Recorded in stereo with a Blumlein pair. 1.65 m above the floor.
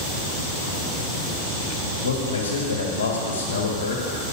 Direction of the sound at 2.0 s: 60° left.